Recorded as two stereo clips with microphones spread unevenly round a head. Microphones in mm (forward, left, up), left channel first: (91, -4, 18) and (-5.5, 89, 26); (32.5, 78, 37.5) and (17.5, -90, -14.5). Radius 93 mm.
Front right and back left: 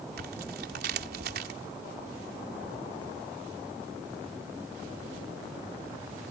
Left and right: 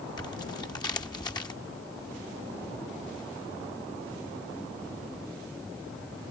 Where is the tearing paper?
155° left.